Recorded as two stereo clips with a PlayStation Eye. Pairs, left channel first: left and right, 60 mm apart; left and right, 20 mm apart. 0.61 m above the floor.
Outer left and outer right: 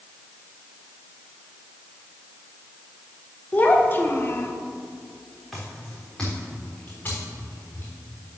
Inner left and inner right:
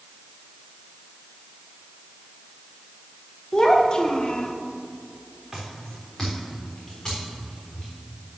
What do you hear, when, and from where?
3.5 s a child speaking: 25° left (ahead or behind), 1.1 m; by 4.5 s 50° left (ahead or behind), 0.9 m
5.5 s footsteps: centre (ahead or behind), 3 m; by 7.9 s 40° left (ahead or behind), 4.5 m